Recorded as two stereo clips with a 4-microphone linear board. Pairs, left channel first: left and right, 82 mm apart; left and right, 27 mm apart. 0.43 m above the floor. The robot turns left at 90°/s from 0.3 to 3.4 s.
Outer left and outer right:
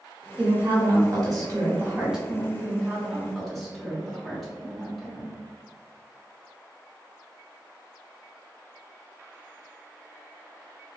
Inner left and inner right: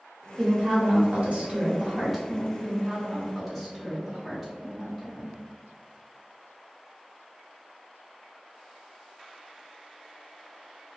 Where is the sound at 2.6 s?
110° right, 1.2 m; by 5.4 s 175° left, 1.2 m.